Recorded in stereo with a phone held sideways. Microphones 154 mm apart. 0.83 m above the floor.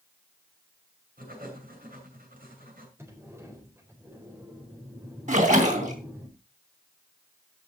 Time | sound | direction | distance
1.2 | writing | 70° right (ahead or behind) | 7 m
3.0 | a sliding door | 15° right (ahead or behind) | 4 m
5.3 | a splash | 55° right (ahead or behind) | 3 m